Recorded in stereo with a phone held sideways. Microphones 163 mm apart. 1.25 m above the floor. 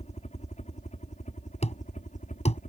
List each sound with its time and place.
0.0 s a helicopter: 45° left (ahead or behind); by 2.7 s 50° left (ahead or behind)
1.6 s a thud: 40° left (ahead or behind)